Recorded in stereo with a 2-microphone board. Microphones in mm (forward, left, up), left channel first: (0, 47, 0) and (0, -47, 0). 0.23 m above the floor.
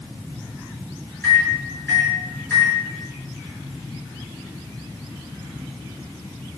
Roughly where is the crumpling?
I don't hear crumpling.